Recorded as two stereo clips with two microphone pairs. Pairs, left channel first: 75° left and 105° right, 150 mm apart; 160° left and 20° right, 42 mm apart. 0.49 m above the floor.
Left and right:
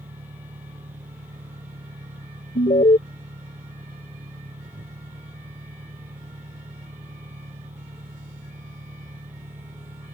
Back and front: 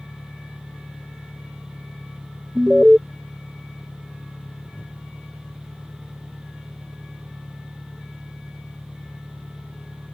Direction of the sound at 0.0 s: 140° right.